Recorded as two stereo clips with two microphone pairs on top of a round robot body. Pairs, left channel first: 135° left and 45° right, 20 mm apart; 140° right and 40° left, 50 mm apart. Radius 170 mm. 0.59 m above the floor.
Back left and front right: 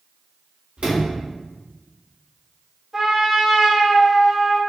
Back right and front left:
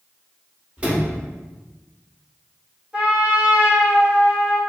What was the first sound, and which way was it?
A sliding door, 30° right.